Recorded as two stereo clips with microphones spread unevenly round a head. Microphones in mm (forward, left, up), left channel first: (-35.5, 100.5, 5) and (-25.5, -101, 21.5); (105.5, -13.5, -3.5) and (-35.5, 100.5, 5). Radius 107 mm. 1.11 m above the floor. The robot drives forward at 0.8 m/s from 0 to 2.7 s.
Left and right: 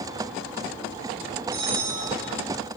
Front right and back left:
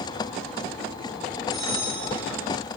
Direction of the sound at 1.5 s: 130° right.